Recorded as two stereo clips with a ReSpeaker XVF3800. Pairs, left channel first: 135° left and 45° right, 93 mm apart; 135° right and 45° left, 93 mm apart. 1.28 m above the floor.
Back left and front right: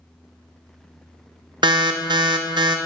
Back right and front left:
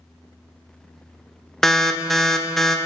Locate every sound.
1.6 s an alarm: 50° right, 0.6 m